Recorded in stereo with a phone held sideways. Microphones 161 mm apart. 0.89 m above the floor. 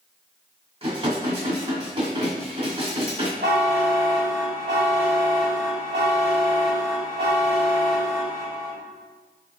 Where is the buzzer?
75° right (ahead or behind), 1.9 m.